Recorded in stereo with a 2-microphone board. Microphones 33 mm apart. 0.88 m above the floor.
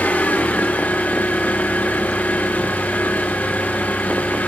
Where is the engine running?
60° left (ahead or behind), 7.5 m.